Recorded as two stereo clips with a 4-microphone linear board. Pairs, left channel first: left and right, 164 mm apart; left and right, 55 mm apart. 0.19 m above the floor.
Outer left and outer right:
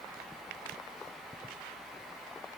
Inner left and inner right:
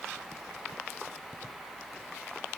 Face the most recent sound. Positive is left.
No sound to turn to.